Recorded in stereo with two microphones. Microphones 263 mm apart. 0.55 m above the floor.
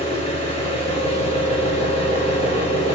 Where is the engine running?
25° left (ahead or behind), 4 m.